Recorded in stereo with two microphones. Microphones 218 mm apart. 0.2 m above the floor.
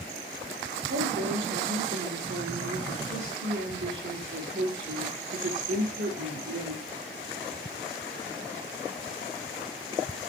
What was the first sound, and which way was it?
A woman speaking, 70° right (ahead or behind).